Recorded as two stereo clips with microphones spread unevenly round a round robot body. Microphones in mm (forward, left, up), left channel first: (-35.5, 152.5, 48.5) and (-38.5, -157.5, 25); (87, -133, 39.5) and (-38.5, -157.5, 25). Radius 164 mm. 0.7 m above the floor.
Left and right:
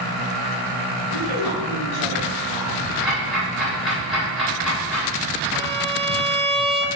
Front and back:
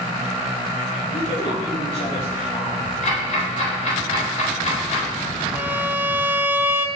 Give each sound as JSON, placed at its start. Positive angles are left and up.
{"t": 1.1, "sound": "a woman speaking", "azimuth_deg": 45, "distance_m": 3.5}
{"t": 3.0, "sound": "ticking", "azimuth_deg": 0, "distance_m": 3.5}
{"t": 5.5, "sound": "a violin", "azimuth_deg": -130, "distance_m": 0.8}